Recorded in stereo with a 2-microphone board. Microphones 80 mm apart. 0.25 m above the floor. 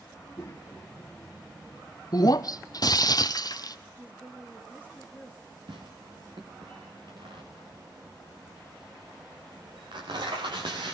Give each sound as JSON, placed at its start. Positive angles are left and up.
{"t": 0.1, "sound": "a child speaking", "side_deg": 45, "distance_m": 2.5}
{"t": 2.1, "sound": "breaking glass", "side_deg": 55, "distance_m": 0.8}
{"t": 4.0, "sound": "a woman speaking", "side_deg": -25, "distance_m": 3.5}
{"t": 5.7, "sound": "tearing paper", "side_deg": -85, "distance_m": 5.0}